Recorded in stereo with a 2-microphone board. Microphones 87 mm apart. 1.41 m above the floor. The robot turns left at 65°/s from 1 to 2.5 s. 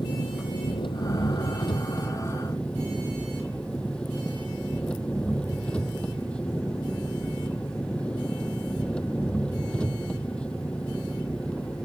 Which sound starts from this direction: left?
An engine running, at 0.0 s.